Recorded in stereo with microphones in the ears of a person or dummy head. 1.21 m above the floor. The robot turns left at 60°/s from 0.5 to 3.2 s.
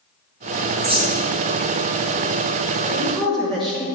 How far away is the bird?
About 0.8 m.